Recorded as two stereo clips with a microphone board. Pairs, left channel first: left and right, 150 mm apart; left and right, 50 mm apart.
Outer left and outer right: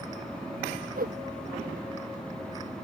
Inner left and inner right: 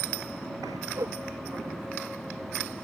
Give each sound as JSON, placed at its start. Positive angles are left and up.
{"t": 1.0, "sound": "a whoosh", "side_deg": -75}